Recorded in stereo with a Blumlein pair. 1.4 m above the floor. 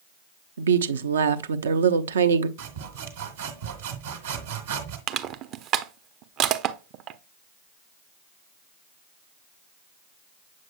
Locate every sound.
0.6 s a woman speaking: 65° right, 0.7 m
2.6 s sawing: 60° right, 1.8 m
5.1 s crushing: 35° right, 0.6 m